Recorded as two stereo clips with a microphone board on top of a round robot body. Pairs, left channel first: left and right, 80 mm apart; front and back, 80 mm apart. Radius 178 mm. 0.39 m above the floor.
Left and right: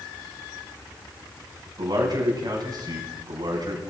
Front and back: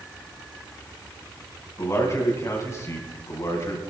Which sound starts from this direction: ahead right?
A man speaking, at 1.8 s.